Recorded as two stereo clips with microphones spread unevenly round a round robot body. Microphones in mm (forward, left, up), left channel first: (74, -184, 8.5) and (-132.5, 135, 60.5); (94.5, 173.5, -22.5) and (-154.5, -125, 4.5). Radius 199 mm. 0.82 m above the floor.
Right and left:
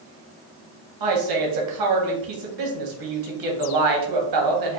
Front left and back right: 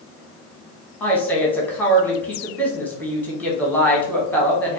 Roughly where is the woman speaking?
Behind left.